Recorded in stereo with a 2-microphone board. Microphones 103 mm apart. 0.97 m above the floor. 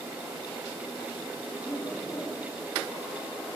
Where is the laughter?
40° left (ahead or behind), 5 m.